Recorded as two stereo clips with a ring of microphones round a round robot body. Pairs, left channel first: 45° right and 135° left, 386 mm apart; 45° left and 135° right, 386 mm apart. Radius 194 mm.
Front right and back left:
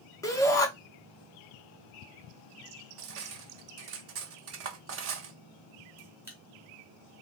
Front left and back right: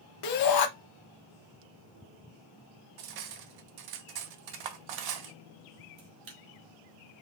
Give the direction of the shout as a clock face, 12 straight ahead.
11 o'clock.